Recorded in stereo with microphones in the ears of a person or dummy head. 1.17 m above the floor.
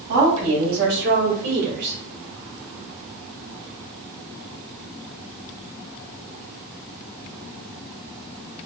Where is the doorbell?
No doorbell in this recording.